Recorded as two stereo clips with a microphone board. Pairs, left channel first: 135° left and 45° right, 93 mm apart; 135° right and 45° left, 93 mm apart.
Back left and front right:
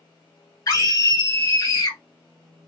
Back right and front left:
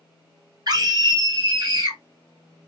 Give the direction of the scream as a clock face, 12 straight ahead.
9 o'clock.